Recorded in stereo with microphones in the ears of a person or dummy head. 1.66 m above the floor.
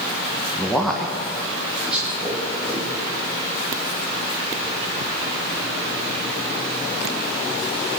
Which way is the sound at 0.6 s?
5° left (ahead or behind).